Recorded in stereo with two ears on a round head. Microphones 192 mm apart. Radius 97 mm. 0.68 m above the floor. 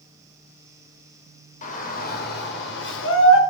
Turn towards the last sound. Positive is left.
turn(degrees=65)  # may be behind; listen again after turning